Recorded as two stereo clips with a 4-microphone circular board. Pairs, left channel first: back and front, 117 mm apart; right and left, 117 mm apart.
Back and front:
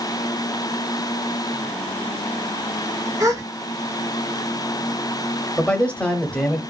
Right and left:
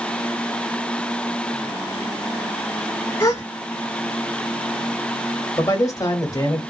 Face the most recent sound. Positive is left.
turn(degrees=-110)